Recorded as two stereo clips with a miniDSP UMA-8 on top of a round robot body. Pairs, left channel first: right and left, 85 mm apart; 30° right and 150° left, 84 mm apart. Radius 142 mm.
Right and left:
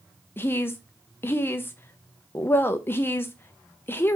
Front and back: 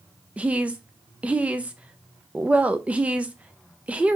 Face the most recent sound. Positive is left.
turn(degrees=-140)